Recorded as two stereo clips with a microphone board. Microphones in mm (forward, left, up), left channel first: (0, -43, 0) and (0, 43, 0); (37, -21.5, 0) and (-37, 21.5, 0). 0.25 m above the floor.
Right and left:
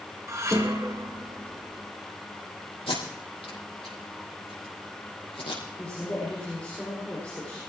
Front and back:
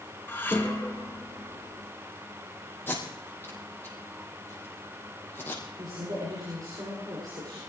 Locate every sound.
0.3 s dishes clattering: 35° left, 2.5 m
2.9 s tape being pulled: 100° right, 5.5 m
5.8 s a woman speaking: 170° right, 10 m